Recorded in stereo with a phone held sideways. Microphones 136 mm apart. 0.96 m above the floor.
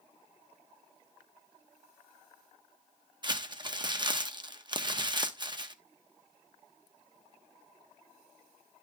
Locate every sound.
3.2 s crumpling: 35° right (ahead or behind), 0.8 m